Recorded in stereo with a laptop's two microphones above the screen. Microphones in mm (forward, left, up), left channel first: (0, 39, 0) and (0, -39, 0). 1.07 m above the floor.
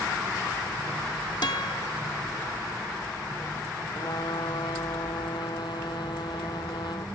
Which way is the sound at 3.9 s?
70° left (ahead or behind).